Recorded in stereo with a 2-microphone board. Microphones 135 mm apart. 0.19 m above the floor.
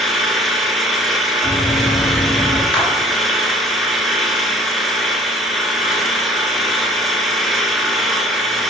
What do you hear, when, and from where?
0.0 s an engine running: centre (ahead or behind), 1.0 m
1.4 s running footsteps: 30° left (ahead or behind), 3 m; by 2.6 s 55° left (ahead or behind), 2.5 m
2.7 s a clap: 10° left (ahead or behind), 2 m